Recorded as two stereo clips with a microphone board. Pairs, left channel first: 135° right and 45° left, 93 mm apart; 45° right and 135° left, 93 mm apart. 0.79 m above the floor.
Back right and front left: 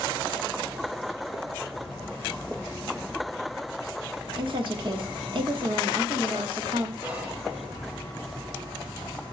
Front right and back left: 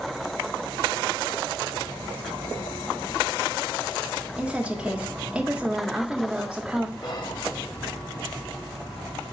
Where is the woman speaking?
55° left, 1.7 m.